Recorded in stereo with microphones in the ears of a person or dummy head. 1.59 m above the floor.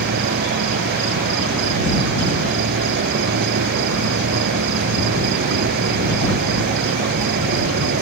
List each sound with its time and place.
0.0 s an insect: 55° right (ahead or behind)